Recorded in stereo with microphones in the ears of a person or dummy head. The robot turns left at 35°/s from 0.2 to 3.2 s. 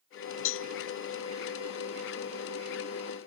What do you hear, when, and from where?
0.5 s a cowbell: 65° left (ahead or behind), 0.8 m; by 0.7 s 70° left (ahead or behind), 0.8 m